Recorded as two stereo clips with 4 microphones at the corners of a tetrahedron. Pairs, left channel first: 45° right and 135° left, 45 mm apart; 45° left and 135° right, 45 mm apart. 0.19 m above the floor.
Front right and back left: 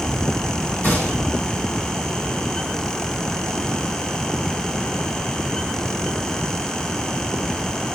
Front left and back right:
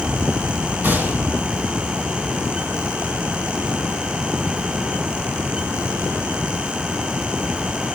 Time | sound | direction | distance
0.8 | a gunshot | 85° right | 5 m